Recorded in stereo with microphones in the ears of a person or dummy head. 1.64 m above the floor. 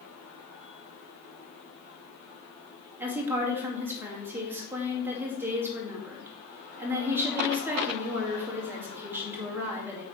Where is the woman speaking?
10° right (ahead or behind), 2 m.